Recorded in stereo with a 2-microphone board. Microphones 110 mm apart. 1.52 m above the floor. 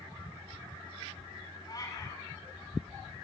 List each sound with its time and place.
1.7 s a cat meowing: 30° left (ahead or behind), 7.5 m